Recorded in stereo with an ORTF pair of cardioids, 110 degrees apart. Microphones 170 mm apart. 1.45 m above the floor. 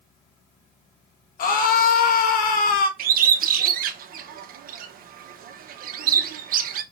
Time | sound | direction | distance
1.4 | a scream | 55° left | 1.6 m
3.0 | a bird | 55° right | 1.2 m